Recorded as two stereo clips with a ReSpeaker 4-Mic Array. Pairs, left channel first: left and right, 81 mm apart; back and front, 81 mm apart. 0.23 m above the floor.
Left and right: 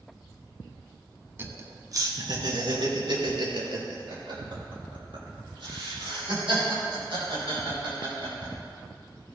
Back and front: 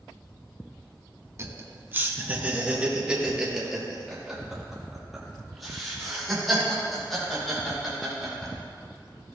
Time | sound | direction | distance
1.4 | laughter | 40° right | 1.4 m